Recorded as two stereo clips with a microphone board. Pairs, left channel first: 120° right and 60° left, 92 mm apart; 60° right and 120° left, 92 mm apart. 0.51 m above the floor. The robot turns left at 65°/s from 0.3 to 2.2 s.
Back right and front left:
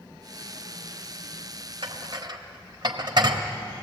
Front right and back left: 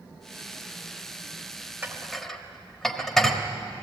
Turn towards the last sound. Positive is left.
turn(degrees=25)